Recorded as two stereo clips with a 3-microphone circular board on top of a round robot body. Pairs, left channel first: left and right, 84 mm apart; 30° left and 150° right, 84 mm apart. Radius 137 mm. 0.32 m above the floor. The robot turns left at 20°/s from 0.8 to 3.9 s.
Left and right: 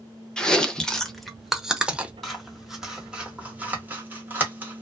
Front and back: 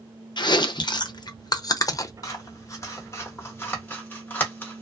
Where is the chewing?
10° left, 0.6 m; by 2.1 s 15° right, 0.6 m.